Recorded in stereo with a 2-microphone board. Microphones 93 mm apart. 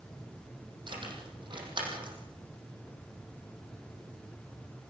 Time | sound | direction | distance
0.9 | keys jangling | 55° right (ahead or behind) | 5.5 m